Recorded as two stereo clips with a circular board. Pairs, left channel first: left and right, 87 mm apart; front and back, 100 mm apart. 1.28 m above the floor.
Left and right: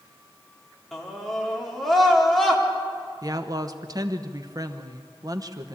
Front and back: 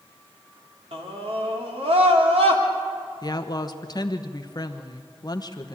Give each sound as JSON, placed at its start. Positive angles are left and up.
{"t": 0.9, "sound": "a scream", "azimuth_deg": 180, "distance_m": 3.5}
{"t": 3.2, "sound": "a woman speaking", "azimuth_deg": -45, "distance_m": 1.2}